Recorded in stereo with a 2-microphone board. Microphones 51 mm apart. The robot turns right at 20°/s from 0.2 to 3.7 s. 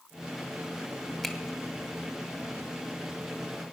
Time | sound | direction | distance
1.2 | a finger snap | 5° left (ahead or behind) | 1.3 m